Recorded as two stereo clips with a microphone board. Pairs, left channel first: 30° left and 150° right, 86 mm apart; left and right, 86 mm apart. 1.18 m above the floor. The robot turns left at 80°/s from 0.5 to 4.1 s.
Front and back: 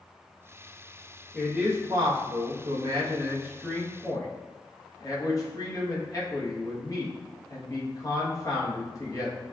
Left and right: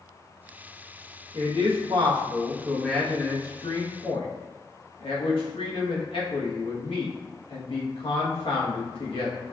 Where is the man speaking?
60° right, 1.3 m; by 9.4 s 80° left, 1.3 m.